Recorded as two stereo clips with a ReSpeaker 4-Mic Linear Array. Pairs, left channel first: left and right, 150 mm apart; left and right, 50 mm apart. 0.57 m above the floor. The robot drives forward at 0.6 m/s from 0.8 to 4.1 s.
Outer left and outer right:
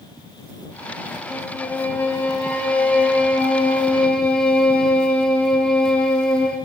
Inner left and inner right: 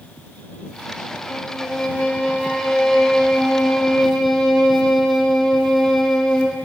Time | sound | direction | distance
1.3 | a violin | 10° left (ahead or behind) | 2.5 m